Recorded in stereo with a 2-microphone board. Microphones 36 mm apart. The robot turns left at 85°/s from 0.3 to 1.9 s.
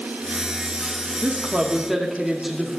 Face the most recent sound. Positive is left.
turn(degrees=-170)